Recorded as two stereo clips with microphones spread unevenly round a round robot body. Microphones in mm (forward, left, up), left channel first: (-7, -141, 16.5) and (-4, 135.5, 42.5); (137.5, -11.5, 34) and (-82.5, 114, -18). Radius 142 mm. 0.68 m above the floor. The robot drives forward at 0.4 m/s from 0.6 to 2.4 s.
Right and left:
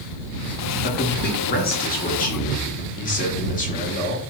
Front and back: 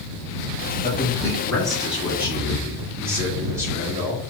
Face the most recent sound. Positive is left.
turn(degrees=-140)